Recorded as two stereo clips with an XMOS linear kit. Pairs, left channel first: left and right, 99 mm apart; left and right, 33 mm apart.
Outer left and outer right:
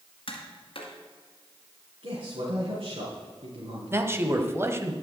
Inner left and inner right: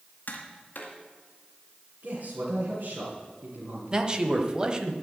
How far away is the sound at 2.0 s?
About 3.5 m.